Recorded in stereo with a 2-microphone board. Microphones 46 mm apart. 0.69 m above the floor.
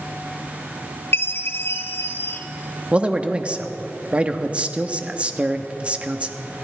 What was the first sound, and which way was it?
A chime, 60° left (ahead or behind).